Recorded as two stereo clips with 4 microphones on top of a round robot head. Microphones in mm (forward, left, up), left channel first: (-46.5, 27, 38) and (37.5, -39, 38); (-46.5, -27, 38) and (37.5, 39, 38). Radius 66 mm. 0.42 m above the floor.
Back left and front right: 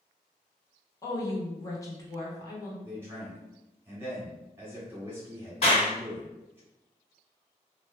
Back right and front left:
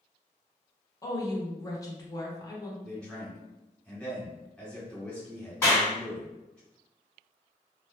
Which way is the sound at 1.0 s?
Straight behind.